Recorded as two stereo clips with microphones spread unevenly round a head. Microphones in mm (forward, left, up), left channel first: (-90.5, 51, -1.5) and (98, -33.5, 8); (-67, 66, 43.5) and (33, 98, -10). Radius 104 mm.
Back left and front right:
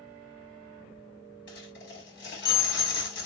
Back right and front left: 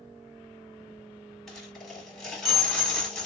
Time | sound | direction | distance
1.5 | a dropped coin | 125° left | 3 m